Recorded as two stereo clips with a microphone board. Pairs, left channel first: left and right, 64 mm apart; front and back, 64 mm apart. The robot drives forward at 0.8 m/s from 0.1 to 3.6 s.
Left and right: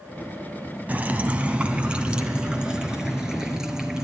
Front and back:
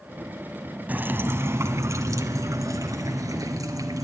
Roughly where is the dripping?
Behind right.